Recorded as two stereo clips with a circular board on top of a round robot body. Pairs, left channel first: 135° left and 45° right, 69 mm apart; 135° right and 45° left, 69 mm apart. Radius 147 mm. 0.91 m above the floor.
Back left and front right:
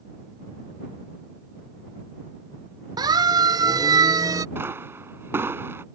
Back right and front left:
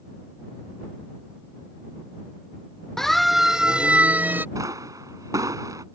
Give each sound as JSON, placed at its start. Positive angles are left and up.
{"t": 3.0, "sound": "a siren", "azimuth_deg": -50}
{"t": 4.5, "sound": "a pop", "azimuth_deg": 10}